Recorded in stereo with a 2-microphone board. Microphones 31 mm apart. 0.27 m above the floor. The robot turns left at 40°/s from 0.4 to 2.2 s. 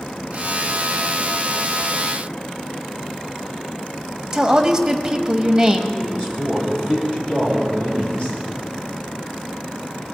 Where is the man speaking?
35° left (ahead or behind), 7 m.